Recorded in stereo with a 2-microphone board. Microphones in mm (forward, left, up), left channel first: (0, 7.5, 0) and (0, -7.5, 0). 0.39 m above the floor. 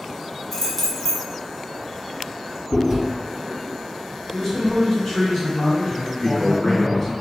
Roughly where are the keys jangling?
Centre.